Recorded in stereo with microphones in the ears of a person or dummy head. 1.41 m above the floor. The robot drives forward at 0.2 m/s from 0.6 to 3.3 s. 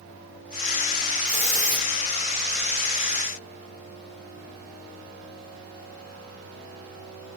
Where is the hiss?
40° left (ahead or behind), 3 m.